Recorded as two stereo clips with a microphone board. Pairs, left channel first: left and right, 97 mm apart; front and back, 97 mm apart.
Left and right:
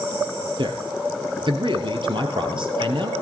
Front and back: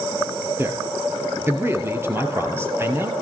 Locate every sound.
0.6 s a man speaking: 115° right, 2 m